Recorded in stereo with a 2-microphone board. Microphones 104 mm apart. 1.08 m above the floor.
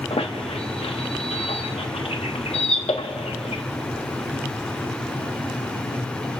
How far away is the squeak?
About 0.9 m.